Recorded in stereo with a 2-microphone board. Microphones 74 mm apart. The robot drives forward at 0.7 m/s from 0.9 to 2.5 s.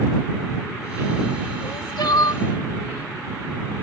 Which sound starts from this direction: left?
Crying, at 1.6 s.